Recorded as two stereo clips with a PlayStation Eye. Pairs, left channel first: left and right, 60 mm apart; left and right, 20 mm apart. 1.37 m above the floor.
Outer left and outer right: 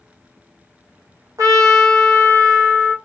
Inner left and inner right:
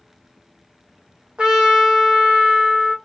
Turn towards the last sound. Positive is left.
turn(degrees=-65)  # may be behind; listen again after turning